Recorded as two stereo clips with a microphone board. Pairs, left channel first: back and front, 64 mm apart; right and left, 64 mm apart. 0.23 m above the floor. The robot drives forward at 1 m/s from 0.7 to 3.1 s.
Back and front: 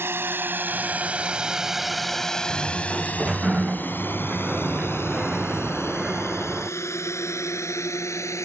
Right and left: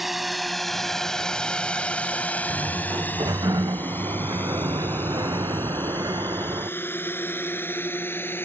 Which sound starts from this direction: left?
A sliding door, at 2.5 s.